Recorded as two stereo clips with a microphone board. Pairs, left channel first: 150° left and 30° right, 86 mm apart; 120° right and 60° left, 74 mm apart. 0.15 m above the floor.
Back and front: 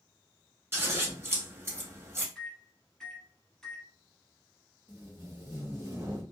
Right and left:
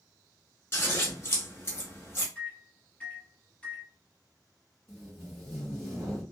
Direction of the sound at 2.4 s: 140° right.